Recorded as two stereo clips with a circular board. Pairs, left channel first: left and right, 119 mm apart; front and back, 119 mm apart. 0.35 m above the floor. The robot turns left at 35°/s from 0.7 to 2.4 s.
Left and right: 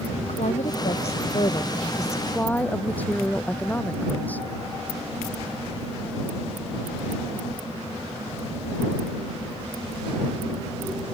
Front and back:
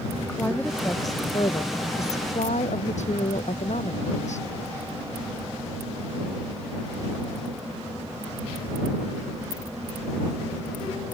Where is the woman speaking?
75° left; by 4.5 s 15° left.